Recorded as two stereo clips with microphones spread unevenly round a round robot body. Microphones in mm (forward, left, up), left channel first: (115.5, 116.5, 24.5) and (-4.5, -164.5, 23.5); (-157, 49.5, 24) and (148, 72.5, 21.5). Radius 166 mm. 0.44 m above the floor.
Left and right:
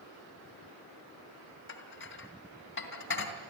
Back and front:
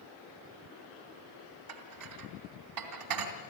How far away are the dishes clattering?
About 3 m.